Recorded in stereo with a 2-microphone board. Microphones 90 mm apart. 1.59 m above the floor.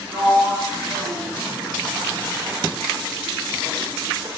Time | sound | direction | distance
0.1 | a sliding door | 75° right (ahead or behind) | 0.9 m